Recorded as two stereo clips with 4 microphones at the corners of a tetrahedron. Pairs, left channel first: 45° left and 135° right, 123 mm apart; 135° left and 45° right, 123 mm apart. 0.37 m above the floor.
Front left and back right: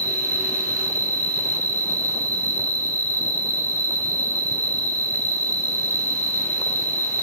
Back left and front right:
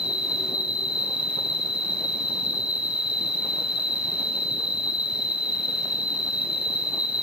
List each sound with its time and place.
0.0 s an insect: 115° right, 0.8 m